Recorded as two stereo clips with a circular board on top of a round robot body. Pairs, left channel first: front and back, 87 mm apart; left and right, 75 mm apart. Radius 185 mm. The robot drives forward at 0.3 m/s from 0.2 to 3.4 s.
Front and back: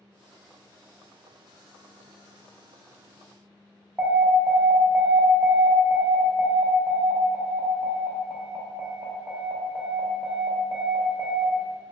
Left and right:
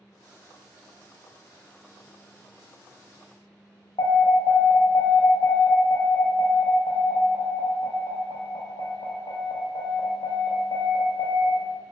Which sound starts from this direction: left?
An alarm, at 4.0 s.